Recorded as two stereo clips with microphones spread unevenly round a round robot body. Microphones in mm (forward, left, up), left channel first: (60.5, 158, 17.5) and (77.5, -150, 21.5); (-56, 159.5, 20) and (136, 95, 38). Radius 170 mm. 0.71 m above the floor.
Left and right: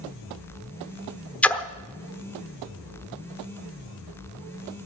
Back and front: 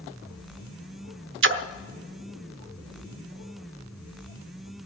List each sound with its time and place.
1.4 s a splash: 5° left, 1.0 m